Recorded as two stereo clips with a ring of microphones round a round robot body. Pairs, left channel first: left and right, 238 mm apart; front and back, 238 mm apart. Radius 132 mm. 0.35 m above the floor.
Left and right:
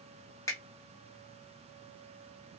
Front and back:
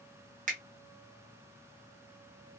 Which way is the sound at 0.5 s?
160° left.